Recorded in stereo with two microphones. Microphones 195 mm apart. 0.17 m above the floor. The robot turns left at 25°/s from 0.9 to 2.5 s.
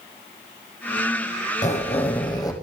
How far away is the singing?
I don't hear singing.